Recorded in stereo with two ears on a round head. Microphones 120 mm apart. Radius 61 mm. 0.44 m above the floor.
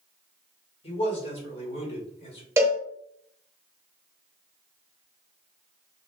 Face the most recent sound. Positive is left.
turn(degrees=-20)  # may be behind; listen again after turning